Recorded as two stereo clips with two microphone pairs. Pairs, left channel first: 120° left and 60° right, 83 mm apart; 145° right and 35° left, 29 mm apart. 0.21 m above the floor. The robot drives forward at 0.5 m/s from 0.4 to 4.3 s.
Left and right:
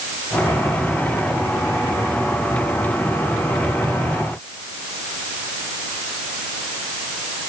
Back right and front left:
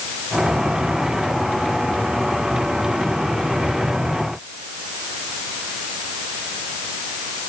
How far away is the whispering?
No whispering in this recording.